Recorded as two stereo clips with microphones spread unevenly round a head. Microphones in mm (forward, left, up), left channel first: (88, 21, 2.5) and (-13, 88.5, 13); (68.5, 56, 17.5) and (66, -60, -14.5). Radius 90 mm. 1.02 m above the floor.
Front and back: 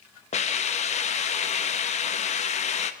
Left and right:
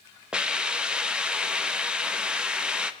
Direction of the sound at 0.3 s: 15° right.